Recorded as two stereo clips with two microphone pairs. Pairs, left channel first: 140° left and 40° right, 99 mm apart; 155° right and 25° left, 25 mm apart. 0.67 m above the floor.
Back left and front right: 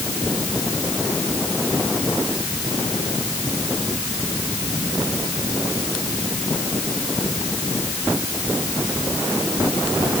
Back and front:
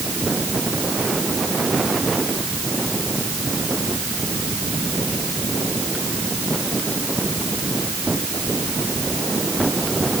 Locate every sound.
Only background noise.